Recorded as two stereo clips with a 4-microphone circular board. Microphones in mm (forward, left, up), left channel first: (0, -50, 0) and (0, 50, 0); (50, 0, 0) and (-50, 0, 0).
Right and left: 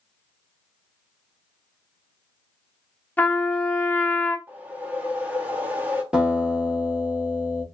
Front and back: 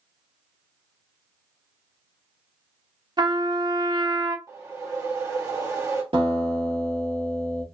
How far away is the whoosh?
About 1.3 m.